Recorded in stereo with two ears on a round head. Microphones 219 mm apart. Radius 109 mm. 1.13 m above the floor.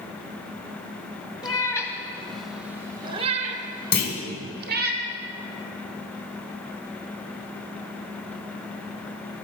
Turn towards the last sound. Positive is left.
turn(degrees=45)  # may be behind; listen again after turning